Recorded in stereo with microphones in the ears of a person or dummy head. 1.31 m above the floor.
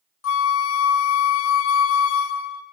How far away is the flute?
About 0.6 m.